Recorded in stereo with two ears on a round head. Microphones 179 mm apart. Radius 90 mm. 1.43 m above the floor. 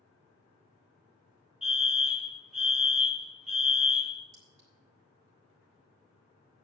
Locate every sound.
1.6 s a fire alarm: 5° right (ahead or behind), 1.8 m
4.3 s a clink: 60° right (ahead or behind), 5.5 m